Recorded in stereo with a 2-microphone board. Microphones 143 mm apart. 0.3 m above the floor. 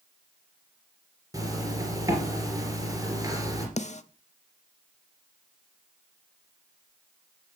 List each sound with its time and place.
1.3 s a zipper: 25° right (ahead or behind), 3 m
3.8 s a snare drum: 55° left (ahead or behind), 0.6 m